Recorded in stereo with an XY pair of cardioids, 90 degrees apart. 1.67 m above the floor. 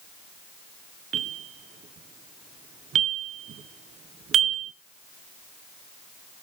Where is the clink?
I don't hear a clink.